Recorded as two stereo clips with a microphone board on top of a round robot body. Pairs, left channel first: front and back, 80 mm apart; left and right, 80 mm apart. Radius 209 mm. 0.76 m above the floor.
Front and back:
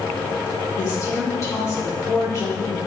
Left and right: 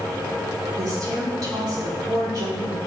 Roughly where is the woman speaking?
Ahead right.